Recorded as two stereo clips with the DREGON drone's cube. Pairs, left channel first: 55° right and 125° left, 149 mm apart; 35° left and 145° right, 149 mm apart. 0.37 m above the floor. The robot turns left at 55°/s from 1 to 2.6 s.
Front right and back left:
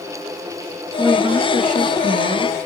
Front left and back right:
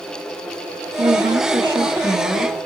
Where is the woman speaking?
170° right, 5.5 m; by 2.7 s 100° left, 5.5 m.